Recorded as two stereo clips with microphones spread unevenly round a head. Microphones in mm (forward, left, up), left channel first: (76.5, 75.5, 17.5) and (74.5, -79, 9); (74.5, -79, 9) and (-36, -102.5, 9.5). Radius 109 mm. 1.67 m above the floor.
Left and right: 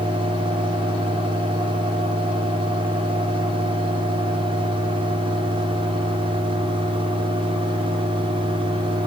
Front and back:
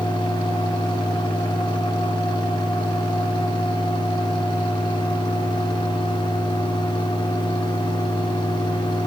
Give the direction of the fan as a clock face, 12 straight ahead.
1 o'clock.